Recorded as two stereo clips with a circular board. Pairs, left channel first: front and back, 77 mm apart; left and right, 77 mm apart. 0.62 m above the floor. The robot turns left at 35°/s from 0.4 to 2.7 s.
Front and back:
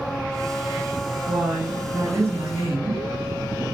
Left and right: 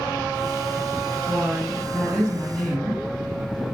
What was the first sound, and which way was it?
A woman speaking, 130° right.